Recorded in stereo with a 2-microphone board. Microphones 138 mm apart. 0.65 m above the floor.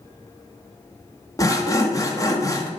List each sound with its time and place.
1.4 s sawing: 25° left (ahead or behind), 1.2 m